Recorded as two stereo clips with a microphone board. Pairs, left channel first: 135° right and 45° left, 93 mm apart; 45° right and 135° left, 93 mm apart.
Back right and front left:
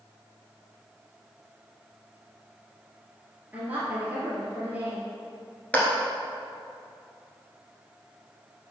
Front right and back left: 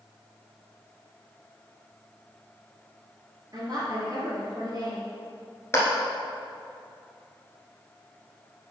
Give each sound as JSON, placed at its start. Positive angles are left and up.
{"t": 3.5, "sound": "a woman speaking", "azimuth_deg": 110, "distance_m": 2.5}
{"t": 5.7, "sound": "a clap", "azimuth_deg": -75, "distance_m": 1.6}